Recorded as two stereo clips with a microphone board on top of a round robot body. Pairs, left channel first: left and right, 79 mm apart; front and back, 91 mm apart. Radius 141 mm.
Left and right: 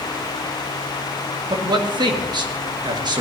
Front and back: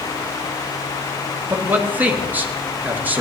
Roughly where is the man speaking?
Right.